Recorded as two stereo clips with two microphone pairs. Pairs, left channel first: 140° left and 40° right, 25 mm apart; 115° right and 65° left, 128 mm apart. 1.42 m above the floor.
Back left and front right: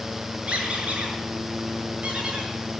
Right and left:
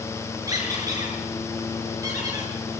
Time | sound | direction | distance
0.5 | a squeak | 5° left | 7 m